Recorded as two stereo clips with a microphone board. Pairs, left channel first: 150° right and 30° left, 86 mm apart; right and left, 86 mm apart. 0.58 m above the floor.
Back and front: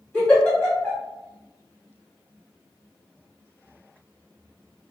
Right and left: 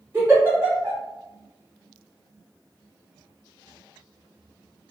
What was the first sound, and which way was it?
A giggle, 150° left.